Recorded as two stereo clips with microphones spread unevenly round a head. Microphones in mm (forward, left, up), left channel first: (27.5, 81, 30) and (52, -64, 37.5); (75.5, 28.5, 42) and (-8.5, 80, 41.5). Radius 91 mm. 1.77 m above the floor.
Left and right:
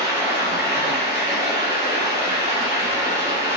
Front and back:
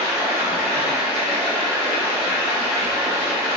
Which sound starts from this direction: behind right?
Running water, at 0.0 s.